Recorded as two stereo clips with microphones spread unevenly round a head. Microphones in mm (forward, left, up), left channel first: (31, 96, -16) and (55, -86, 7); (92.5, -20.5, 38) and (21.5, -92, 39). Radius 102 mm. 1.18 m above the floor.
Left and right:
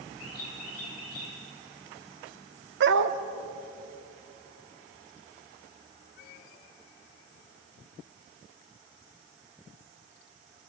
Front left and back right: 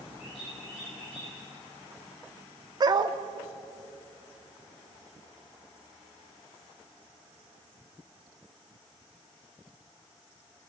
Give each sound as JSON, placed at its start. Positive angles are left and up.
{"t": 0.2, "sound": "a bird", "azimuth_deg": 105, "distance_m": 10.0}
{"t": 2.8, "sound": "a dog barking", "azimuth_deg": -90, "distance_m": 1.0}